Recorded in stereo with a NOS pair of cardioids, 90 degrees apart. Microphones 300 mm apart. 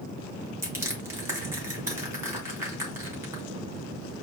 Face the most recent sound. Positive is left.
turn(degrees=-10)